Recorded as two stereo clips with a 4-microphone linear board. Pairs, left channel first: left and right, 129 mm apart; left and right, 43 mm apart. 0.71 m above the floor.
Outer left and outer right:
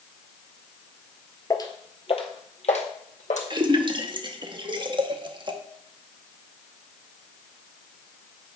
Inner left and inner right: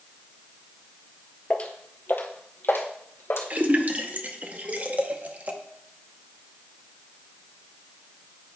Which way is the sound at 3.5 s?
40° right (ahead or behind).